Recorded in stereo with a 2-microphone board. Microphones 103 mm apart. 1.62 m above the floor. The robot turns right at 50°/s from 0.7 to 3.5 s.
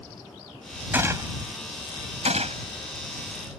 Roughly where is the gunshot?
Centre.